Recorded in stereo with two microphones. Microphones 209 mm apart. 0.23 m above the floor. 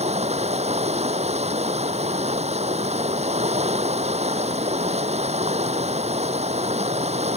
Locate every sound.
0.0 s running water: 30° right (ahead or behind)